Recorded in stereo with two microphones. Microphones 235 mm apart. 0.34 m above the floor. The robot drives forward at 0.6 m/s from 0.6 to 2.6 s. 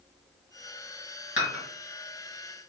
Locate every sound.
1.4 s dishes clattering: 50° left (ahead or behind), 1.5 m; by 1.6 s 55° left (ahead or behind), 1.4 m